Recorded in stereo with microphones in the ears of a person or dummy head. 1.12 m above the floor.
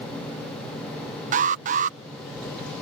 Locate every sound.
1.3 s an alarm: 40° right (ahead or behind)